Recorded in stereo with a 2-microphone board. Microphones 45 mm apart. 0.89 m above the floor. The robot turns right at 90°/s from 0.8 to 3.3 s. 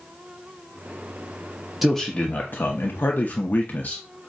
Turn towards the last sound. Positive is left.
turn(degrees=135)